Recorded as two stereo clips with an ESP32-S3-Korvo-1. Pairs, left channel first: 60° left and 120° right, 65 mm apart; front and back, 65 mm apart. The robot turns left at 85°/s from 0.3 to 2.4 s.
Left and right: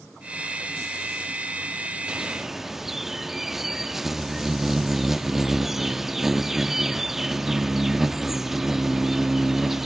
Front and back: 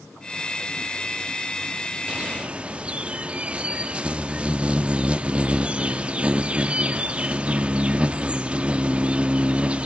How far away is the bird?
About 0.5 m.